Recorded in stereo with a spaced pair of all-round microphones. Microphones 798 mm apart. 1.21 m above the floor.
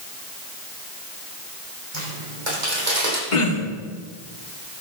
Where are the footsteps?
70° right (ahead or behind), 4 m; by 3.2 s 60° right (ahead or behind), 3 m.